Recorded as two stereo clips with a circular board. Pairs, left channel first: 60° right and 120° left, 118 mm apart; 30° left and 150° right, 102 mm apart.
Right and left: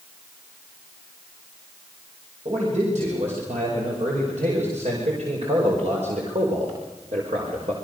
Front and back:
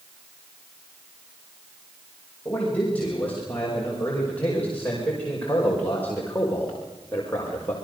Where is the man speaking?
105° left, 7 m; by 7.7 s 100° left, 4 m.